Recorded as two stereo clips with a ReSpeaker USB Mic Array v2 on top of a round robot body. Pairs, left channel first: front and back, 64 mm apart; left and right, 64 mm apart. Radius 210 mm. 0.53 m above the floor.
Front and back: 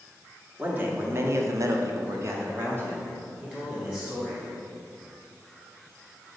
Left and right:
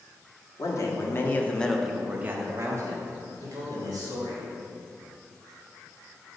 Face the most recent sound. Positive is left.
turn(degrees=-110)